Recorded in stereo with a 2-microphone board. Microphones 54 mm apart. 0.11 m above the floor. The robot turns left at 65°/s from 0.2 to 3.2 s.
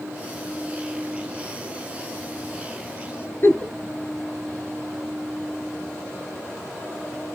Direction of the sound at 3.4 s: 45° left (ahead or behind).